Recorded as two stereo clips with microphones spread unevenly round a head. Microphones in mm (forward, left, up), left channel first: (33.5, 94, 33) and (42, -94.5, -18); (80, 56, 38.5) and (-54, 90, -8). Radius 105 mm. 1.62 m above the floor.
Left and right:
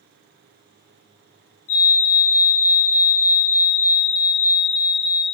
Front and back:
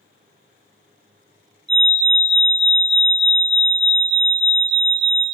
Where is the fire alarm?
120° left, 3 m.